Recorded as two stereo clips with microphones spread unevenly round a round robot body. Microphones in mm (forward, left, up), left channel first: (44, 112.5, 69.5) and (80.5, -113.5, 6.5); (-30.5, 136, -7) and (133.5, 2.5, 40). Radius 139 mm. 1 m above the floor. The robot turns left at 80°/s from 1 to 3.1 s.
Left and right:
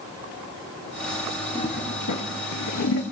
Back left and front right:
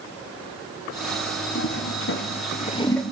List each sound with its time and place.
1.6 s a toilet flushing: straight behind, 1.2 m; by 3.0 s 60° left, 1.2 m